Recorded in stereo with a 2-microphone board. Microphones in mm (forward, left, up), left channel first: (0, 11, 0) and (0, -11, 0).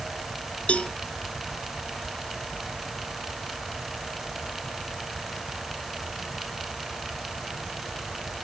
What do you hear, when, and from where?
0.7 s a cowbell: 65° left (ahead or behind)